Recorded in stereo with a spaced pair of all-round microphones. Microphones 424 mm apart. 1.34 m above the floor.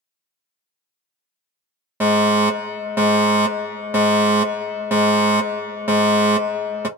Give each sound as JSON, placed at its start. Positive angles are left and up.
{"t": 2.0, "sound": "a fire alarm", "side_deg": -5, "distance_m": 1.0}